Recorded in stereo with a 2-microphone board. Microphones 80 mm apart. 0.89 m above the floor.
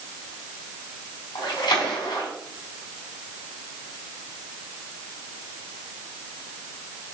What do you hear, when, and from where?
1.4 s a splash: 65° left (ahead or behind), 3.5 m